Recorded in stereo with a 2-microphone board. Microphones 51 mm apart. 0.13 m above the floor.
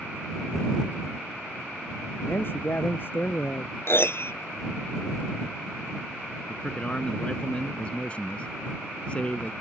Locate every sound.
2.2 s a man speaking: 45° left (ahead or behind)
3.9 s a piano: 55° left (ahead or behind)
6.5 s a man speaking: 25° left (ahead or behind)